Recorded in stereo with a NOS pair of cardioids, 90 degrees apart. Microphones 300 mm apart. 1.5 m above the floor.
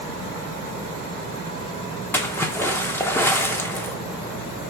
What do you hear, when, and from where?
2.1 s a splash: 5° left, 0.9 m